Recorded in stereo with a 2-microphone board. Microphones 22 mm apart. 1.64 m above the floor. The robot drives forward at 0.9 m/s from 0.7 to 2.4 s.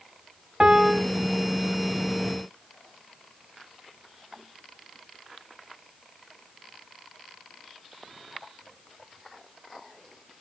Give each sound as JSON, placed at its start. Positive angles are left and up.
{"t": 0.6, "sound": "a piano", "side_deg": -45, "distance_m": 0.5}